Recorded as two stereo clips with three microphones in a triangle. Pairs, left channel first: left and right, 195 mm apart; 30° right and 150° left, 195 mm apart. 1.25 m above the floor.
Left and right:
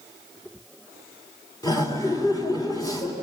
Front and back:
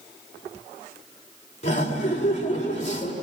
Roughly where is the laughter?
Ahead.